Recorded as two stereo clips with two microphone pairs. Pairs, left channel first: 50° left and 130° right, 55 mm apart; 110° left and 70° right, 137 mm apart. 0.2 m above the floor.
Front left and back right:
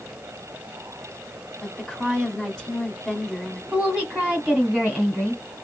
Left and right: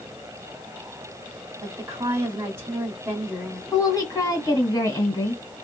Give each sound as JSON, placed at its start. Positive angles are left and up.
{"t": 1.6, "sound": "a woman speaking", "azimuth_deg": -20, "distance_m": 1.1}
{"t": 3.7, "sound": "a woman speaking", "azimuth_deg": 155, "distance_m": 1.6}